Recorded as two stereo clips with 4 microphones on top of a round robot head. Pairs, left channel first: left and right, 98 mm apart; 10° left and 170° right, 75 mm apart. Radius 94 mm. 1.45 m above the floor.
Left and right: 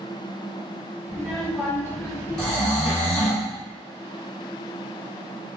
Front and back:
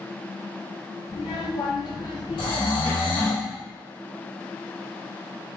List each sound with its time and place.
1.1 s a child speaking: 5° left, 1.2 m; by 3.4 s 85° left, 0.9 m
2.4 s snoring: 5° left, 1.4 m